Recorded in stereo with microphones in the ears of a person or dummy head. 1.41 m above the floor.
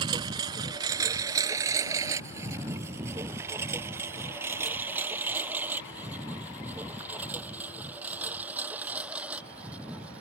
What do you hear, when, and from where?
0.0 s a lawn mower: 25° right (ahead or behind); by 10.2 s 10° right (ahead or behind)